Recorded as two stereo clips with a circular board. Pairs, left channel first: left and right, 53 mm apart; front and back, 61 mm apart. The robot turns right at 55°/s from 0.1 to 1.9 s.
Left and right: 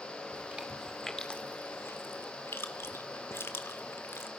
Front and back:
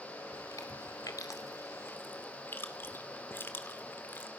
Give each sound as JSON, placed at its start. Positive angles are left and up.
{"t": 0.3, "sound": "chewing", "azimuth_deg": -35, "distance_m": 2.0}